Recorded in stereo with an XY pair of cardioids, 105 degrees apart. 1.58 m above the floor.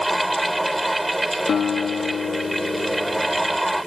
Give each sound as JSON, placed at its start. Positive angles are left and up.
{"t": 0.0, "sound": "a fan", "azimuth_deg": -5}
{"t": 1.5, "sound": "a guitar", "azimuth_deg": 50}